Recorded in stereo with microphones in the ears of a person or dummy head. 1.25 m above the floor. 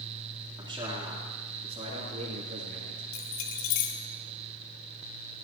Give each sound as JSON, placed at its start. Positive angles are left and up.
{"t": 0.6, "sound": "a man speaking", "side_deg": -15, "distance_m": 3.5}
{"t": 3.1, "sound": "keys jangling", "side_deg": 60, "distance_m": 1.8}